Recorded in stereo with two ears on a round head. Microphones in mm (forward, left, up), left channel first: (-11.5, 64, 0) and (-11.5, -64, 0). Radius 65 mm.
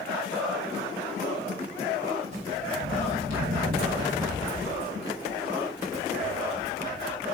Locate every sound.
2.3 s footsteps: 50° right (ahead or behind), 2.5 m; by 7.2 s 45° right (ahead or behind), 6 m